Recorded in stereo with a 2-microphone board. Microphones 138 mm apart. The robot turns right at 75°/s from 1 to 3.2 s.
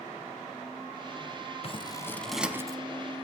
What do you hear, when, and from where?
1.6 s scissors: 45° left (ahead or behind), 0.9 m; by 2.8 s 30° right (ahead or behind), 0.9 m